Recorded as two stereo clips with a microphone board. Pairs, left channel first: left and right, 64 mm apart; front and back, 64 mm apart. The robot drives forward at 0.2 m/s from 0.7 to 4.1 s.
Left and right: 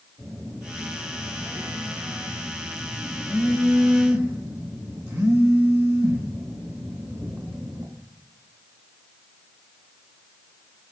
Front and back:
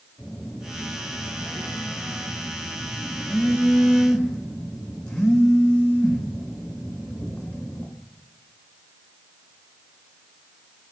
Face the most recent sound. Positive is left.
turn(degrees=-80)